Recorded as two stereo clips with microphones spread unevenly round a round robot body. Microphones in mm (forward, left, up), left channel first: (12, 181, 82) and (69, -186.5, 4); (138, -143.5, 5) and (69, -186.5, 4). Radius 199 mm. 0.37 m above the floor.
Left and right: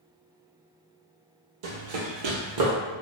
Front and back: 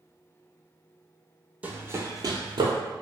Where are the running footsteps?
75° right, 0.8 m; by 2.7 s 140° right, 0.7 m.